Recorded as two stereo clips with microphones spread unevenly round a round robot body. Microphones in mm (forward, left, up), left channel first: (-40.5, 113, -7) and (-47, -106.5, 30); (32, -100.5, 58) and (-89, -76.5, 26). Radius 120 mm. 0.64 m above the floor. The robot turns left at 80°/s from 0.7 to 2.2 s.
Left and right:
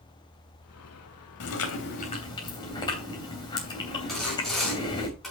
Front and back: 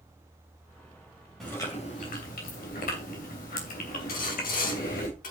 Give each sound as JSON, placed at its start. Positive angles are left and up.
{"t": 1.4, "sound": "chewing", "azimuth_deg": 80, "distance_m": 3.0}
{"t": 4.1, "sound": "sawing", "azimuth_deg": 0, "distance_m": 3.5}